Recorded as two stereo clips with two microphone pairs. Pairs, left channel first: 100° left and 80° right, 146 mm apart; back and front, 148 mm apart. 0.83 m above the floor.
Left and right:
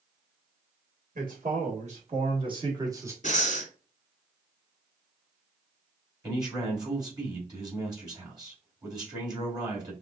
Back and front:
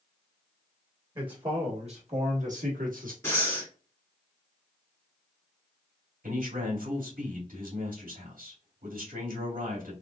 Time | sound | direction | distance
1.1 | a man speaking | 60° right | 1.8 m
3.2 | breathing | 110° left | 1.7 m
6.2 | a man speaking | 20° right | 2.5 m